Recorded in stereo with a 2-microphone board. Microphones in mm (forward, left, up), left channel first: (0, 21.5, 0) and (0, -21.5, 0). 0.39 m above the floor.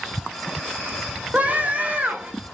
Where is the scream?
35° right (ahead or behind), 1.0 m.